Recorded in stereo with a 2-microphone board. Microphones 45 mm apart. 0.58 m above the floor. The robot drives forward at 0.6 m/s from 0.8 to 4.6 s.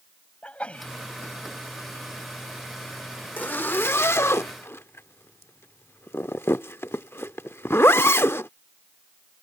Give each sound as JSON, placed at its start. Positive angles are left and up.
{"t": 0.4, "sound": "a sneeze", "side_deg": 25}
{"t": 3.4, "sound": "a zipper", "side_deg": 45}